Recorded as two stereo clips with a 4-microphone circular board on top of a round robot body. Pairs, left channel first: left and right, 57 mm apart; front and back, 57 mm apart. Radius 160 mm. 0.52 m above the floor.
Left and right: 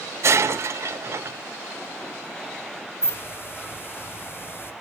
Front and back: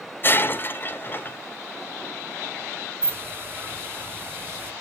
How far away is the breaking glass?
About 1.3 m.